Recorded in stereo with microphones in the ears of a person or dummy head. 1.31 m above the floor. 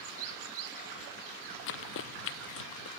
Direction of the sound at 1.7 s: 75° left (ahead or behind).